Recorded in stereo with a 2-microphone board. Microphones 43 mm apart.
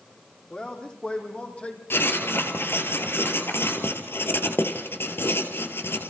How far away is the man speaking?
About 6.5 m.